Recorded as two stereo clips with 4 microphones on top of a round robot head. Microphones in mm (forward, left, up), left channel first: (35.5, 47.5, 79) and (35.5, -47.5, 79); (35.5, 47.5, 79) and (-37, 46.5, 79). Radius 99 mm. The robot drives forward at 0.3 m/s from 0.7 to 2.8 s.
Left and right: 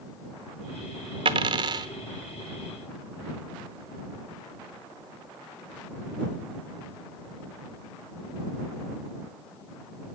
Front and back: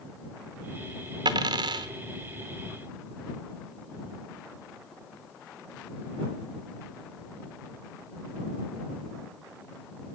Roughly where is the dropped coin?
Behind right.